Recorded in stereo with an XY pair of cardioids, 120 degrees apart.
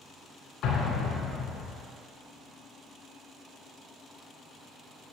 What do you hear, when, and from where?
0.6 s an explosion: 70° left, 1.6 m